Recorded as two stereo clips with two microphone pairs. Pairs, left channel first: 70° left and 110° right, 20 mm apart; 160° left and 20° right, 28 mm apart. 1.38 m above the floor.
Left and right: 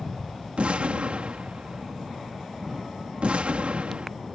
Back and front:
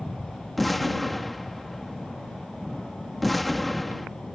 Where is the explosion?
115° right.